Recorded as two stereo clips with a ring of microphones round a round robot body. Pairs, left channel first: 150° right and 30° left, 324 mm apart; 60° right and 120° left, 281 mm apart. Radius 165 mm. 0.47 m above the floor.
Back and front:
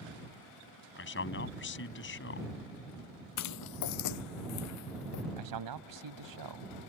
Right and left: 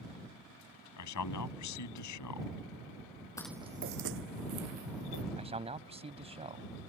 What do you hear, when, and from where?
1.0 s a man speaking: 95° right
3.4 s footsteps: 135° right; by 5.2 s 165° left
5.4 s a man speaking: 50° left